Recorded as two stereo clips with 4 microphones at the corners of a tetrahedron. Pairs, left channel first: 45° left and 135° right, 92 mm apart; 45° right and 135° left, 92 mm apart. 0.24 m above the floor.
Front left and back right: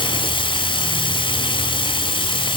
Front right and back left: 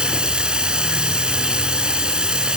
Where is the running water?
55° left, 1.1 m.